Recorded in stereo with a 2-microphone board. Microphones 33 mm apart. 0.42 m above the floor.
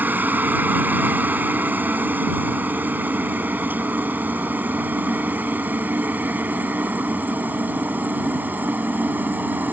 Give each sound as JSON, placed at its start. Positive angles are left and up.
{"t": 0.0, "sound": "a helicopter", "side_deg": -70}